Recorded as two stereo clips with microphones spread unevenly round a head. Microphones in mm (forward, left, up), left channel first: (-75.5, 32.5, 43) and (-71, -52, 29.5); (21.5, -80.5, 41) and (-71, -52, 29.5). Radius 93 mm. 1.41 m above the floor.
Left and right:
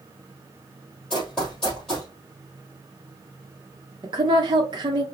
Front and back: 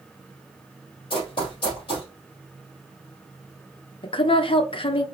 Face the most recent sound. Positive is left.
turn(degrees=-45)